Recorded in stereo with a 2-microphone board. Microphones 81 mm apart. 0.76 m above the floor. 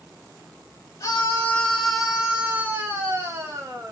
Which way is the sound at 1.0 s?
35° left (ahead or behind).